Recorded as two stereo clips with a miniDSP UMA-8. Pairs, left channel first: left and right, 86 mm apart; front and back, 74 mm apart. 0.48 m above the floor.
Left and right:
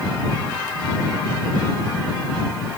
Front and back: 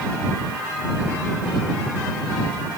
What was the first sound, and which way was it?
Only background noise.